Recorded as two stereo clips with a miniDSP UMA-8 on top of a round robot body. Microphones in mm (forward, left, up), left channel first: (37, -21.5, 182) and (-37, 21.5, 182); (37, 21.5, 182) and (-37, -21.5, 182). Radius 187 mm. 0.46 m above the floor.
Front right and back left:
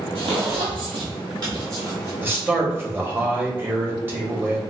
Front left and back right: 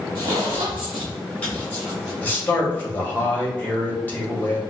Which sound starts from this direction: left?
A man speaking, at 2.2 s.